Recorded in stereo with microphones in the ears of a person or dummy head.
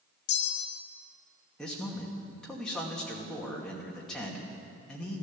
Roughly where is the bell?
Left.